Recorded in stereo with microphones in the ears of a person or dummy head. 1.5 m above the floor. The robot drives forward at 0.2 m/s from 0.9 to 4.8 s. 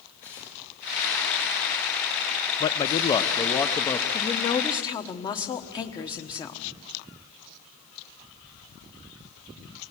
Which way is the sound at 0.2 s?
15° left (ahead or behind).